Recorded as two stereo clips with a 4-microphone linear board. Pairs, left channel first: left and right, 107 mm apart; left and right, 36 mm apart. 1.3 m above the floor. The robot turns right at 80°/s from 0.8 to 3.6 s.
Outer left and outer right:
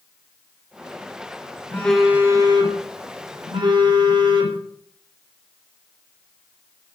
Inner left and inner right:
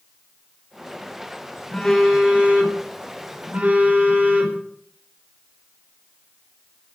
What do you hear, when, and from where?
1.7 s a phone buzzing: 160° left, 5 m; by 4.6 s 50° right, 5 m